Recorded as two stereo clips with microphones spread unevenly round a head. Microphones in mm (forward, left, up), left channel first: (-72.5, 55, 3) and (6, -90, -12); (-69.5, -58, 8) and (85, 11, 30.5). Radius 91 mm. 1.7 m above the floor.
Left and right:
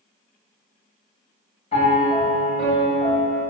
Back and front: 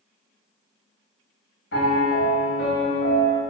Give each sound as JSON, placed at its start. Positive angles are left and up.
{"t": 1.7, "sound": "a piano", "azimuth_deg": 165, "distance_m": 4.0}